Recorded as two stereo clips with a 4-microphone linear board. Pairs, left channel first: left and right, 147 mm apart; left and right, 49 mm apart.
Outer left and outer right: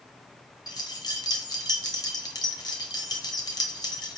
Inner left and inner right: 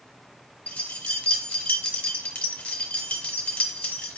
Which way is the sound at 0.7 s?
25° left (ahead or behind).